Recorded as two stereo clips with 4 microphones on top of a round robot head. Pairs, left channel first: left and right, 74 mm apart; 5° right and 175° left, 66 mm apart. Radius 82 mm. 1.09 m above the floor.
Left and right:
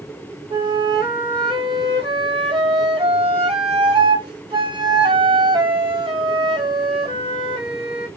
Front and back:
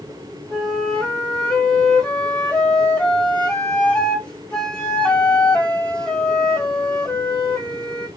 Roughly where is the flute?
Right.